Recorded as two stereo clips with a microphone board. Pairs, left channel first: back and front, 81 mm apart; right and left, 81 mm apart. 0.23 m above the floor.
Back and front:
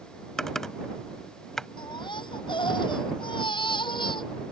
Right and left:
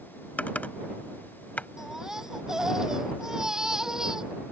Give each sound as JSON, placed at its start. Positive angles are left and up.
{"t": 0.4, "sound": "typing on a keyboard", "azimuth_deg": -105}
{"t": 1.8, "sound": "a baby crying", "azimuth_deg": 175}